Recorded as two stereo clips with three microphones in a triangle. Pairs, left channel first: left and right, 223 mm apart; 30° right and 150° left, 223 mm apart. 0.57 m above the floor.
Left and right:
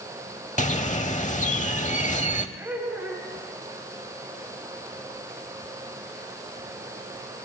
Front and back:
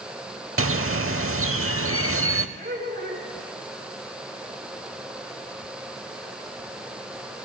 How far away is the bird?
About 0.7 m.